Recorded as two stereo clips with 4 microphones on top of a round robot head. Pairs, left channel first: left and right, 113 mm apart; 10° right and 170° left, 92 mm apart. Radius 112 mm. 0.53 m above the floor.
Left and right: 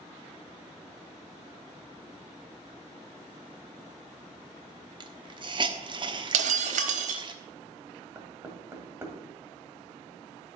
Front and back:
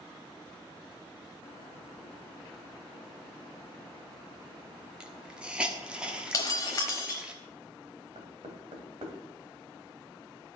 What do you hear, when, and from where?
5.0 s a hiss: 115° right, 1.3 m
6.3 s breaking glass: 75° right, 0.9 m
8.2 s knocking: 160° right, 2.5 m